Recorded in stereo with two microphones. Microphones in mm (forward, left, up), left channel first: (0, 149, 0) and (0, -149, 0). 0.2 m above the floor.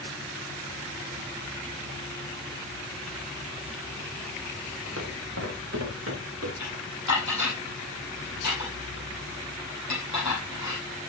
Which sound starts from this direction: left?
Dishes clattering, at 6.6 s.